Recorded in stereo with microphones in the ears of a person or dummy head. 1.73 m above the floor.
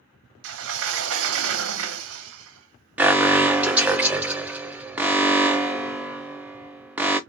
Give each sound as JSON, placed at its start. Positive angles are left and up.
{"t": 0.4, "sound": "a sliding door", "side_deg": -75, "distance_m": 0.7}
{"t": 3.0, "sound": "an alarm", "side_deg": -10, "distance_m": 0.6}